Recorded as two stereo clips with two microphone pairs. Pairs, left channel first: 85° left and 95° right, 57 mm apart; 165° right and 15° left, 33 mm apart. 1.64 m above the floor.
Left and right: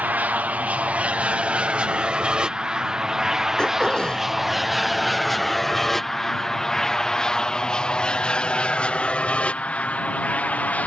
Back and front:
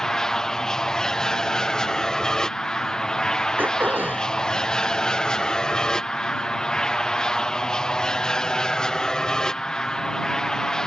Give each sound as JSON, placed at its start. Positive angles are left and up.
{"t": 0.0, "sound": "an aircraft", "azimuth_deg": -110}
{"t": 3.6, "sound": "throat clearing", "azimuth_deg": 5}